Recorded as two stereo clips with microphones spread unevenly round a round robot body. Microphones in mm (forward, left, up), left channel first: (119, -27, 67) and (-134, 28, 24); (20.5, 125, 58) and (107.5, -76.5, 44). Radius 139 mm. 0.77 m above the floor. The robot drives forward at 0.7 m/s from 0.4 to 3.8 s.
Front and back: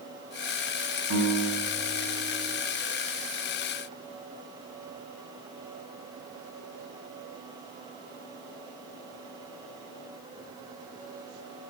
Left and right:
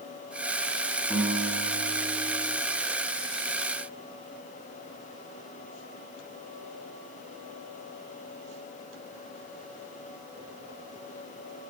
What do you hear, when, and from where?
1.1 s a guitar: 150° right, 3.5 m; by 2.6 s 155° right, 4 m